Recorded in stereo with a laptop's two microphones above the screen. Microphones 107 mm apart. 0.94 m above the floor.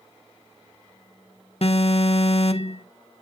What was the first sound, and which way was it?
An alarm, 60° left (ahead or behind).